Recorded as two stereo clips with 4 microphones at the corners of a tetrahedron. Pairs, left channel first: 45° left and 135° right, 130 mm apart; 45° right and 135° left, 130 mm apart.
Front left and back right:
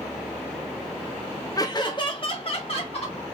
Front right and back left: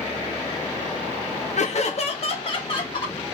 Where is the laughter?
15° right, 0.5 m; by 3.2 s 5° left, 1.3 m.